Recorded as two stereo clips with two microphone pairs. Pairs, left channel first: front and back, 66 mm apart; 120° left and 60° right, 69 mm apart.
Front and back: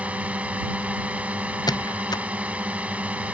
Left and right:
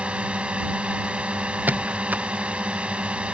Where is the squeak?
5° left.